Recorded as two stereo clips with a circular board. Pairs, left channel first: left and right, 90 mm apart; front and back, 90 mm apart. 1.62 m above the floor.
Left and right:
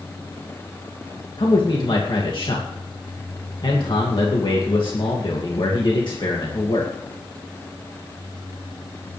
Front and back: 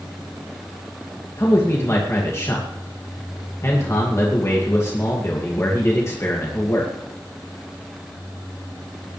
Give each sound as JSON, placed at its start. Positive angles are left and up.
{"t": 1.4, "sound": "a man speaking", "azimuth_deg": 60, "distance_m": 2.0}